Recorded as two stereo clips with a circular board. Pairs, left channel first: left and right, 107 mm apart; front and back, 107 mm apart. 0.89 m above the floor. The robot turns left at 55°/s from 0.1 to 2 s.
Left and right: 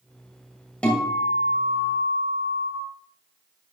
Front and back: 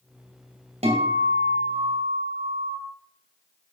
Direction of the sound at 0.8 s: 170° left.